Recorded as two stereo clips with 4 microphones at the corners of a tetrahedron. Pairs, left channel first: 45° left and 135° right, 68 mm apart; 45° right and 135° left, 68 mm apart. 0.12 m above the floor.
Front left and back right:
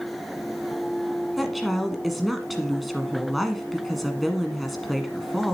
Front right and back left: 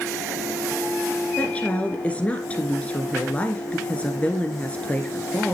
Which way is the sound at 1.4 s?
45° right.